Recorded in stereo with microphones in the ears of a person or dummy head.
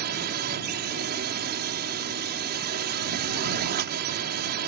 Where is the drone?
50° right (ahead or behind).